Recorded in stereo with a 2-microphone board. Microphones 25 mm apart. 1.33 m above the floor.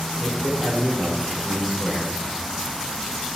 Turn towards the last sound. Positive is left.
turn(degrees=-15)  # may be behind; listen again after turning